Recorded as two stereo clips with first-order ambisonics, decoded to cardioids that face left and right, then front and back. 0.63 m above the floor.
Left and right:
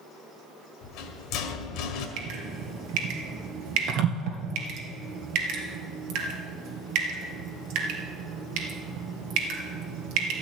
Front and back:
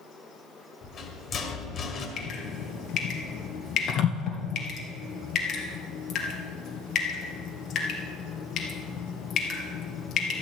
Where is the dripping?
60° right, 2 m.